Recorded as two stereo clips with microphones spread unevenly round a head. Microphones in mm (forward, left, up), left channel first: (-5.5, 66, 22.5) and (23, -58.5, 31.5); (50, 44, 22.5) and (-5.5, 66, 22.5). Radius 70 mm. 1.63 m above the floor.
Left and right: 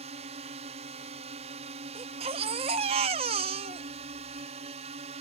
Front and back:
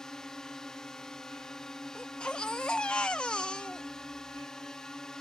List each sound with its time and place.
0.0 s a drone: 105° right
1.9 s a baby crying: 100° right